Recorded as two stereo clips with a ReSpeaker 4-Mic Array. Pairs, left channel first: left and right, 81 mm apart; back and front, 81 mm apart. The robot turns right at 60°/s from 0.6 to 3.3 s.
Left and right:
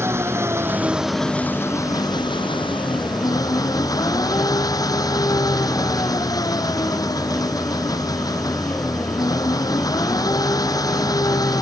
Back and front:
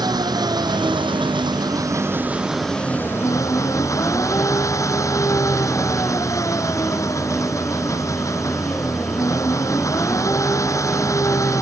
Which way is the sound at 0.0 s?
30° right.